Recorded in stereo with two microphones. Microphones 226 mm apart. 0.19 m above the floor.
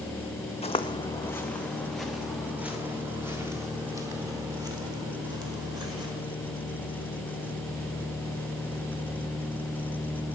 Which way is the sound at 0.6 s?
25° left (ahead or behind).